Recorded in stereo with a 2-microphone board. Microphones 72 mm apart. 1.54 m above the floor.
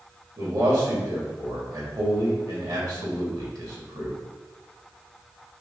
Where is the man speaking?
65° right (ahead or behind), 3 m.